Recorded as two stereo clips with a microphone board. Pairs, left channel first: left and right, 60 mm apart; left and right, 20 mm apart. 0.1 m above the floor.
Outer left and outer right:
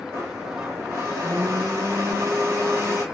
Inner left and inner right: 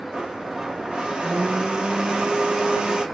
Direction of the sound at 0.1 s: 60° right (ahead or behind).